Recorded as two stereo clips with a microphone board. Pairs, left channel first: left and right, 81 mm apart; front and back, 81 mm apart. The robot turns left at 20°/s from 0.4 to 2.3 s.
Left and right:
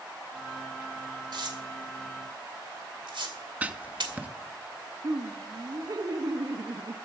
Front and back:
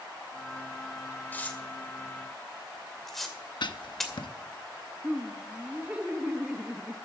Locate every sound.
1.3 s tearing paper: 70° right, 2 m; by 4.1 s 85° right, 2 m
3.6 s writing: 20° right, 0.8 m
5.0 s laughter: 110° right, 1.4 m